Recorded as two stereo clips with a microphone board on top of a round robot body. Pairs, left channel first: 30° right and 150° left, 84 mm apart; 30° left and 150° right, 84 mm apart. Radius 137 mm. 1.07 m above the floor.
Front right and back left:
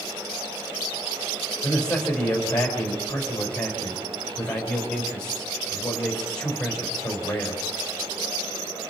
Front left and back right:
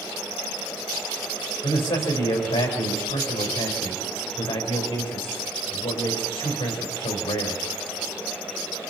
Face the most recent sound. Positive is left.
turn(degrees=10)